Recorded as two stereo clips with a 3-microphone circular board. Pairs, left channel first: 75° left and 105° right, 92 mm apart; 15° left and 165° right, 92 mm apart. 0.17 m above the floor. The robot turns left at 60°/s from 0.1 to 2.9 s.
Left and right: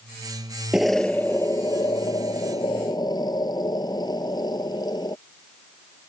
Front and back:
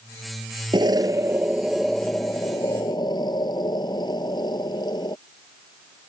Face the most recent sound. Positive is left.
turn(degrees=40)